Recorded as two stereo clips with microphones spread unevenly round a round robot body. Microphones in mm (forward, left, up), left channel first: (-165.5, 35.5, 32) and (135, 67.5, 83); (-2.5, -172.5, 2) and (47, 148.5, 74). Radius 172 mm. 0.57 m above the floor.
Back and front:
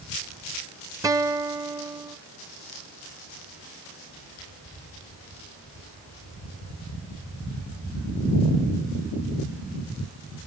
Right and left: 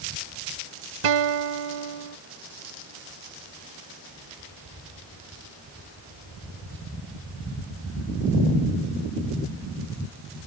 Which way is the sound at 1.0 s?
90° left.